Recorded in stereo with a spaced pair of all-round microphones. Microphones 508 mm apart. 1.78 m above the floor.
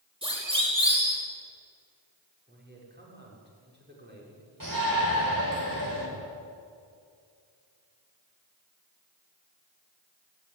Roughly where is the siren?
Centre.